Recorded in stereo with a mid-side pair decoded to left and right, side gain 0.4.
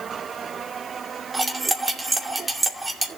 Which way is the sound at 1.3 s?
25° right.